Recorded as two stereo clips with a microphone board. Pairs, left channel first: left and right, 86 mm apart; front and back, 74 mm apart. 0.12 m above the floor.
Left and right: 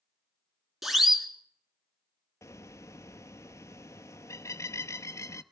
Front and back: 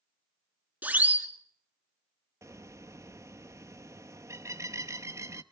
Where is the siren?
170° right, 2 m.